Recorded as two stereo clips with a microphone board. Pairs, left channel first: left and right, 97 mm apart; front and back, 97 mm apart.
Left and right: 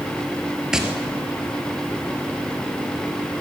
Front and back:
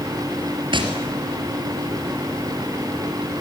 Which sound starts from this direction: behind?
Tapping, at 0.7 s.